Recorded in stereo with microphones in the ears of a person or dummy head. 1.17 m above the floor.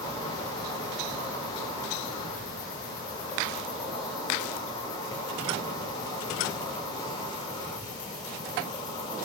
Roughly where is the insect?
Left.